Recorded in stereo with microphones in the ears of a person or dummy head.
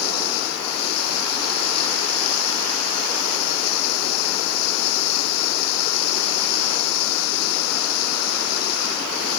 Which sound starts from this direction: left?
Running water, at 0.0 s.